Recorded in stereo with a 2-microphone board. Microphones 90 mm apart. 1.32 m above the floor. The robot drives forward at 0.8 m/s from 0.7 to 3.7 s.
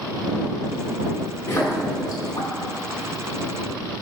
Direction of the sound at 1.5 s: 35° left (ahead or behind).